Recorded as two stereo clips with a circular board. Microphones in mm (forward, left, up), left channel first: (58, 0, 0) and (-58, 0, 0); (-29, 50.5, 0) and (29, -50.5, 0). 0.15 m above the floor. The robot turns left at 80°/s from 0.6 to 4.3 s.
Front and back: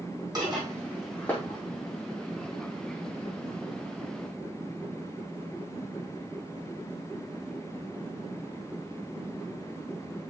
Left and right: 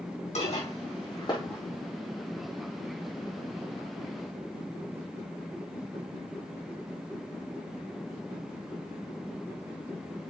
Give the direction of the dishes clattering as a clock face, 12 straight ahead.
8 o'clock.